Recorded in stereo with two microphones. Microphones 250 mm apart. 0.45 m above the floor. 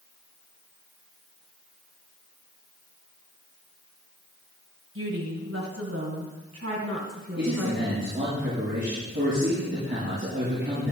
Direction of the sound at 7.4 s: 45° right (ahead or behind).